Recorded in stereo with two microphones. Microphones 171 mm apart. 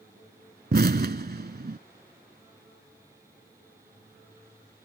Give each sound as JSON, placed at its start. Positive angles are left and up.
{"t": 0.7, "sound": "an explosion", "side_deg": -65}